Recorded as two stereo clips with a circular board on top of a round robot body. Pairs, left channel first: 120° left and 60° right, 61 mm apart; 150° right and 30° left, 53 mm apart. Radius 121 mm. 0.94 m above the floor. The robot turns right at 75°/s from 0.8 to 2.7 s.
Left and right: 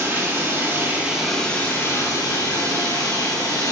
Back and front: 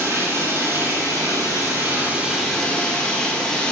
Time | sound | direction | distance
0.0 | running water | 5° right | 7.5 m